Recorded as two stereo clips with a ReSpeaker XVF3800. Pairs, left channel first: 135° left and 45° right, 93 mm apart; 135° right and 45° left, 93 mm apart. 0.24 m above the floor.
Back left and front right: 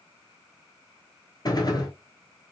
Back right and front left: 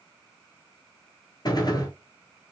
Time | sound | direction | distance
1.4 | a gunshot | straight behind | 0.9 m